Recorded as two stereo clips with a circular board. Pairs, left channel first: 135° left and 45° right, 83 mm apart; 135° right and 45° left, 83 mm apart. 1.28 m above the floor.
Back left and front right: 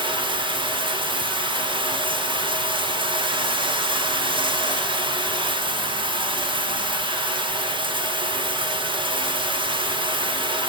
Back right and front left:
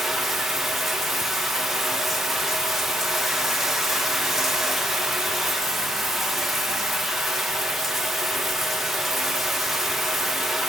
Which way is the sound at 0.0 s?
45° right.